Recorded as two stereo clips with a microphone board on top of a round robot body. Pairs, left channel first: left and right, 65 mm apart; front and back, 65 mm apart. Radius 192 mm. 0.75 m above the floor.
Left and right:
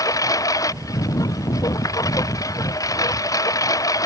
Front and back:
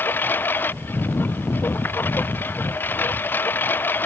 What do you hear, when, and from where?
0.0 s a lawn mower: 60° left